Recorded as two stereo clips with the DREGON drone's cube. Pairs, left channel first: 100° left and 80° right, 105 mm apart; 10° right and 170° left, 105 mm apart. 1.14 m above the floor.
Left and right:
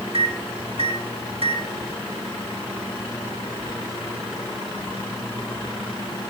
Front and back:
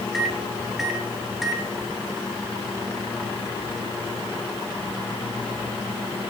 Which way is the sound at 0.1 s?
100° right.